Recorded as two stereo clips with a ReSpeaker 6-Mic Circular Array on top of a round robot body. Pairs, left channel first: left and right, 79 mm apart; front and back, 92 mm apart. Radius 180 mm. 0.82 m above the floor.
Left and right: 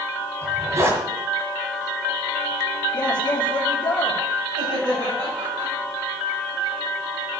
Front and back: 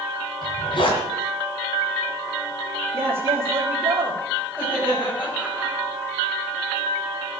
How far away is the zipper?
About 2 m.